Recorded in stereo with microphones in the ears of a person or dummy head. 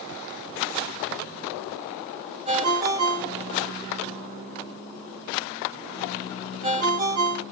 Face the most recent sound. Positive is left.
turn(degrees=-30)  # may be behind; listen again after turning